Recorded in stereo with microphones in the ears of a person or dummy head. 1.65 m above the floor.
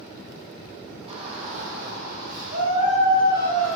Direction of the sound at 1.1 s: 35° right (ahead or behind).